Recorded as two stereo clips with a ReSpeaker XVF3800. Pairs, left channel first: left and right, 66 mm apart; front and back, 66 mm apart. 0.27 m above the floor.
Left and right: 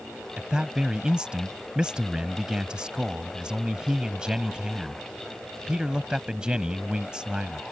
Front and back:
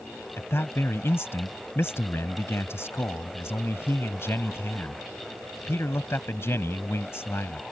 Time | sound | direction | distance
0.4 | a man speaking | 20° right | ?